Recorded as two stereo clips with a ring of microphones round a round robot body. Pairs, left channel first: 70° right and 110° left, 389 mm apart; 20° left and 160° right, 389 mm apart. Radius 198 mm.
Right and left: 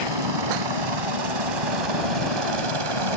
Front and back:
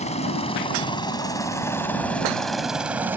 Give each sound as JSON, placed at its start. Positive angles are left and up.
{"t": 0.0, "sound": "a helicopter", "azimuth_deg": 95}